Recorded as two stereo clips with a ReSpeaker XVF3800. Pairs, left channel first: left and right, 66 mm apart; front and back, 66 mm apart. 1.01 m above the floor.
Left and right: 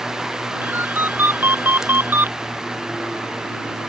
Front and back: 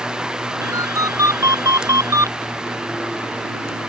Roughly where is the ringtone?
Behind right.